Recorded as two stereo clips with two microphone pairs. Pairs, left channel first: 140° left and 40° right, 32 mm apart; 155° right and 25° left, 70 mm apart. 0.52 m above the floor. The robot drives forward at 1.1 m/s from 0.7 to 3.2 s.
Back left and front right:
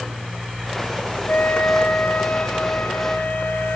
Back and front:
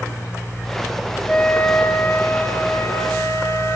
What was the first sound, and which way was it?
A flute, 135° left.